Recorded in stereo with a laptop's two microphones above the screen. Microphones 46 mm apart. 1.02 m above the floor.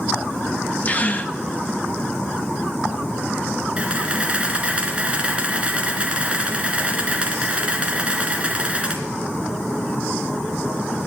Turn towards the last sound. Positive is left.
turn(degrees=-25)  # may be behind; listen again after turning